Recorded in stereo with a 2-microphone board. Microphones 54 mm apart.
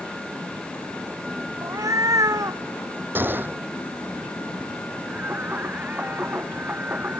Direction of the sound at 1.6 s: 85° right.